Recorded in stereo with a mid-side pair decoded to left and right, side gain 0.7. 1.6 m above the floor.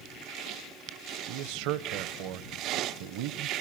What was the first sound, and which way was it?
A man speaking, 70° right.